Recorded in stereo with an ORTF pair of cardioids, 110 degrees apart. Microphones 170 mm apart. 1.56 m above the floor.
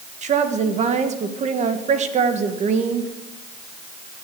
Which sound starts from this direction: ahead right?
A woman speaking, at 0.2 s.